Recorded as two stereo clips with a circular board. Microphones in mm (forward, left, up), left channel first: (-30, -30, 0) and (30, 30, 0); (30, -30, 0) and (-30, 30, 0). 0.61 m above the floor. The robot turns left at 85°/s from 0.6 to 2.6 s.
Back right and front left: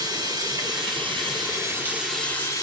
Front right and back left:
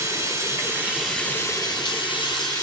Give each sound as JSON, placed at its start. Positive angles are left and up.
{"t": 0.0, "sound": "running water", "azimuth_deg": 85, "distance_m": 3.5}